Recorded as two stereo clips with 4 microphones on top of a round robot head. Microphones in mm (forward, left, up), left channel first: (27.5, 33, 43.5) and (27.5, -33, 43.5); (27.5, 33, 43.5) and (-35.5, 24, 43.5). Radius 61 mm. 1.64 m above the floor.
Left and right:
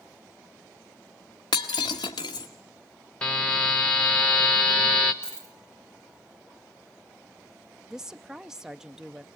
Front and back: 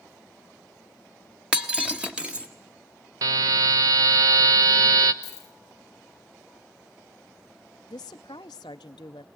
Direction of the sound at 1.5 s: 120° left.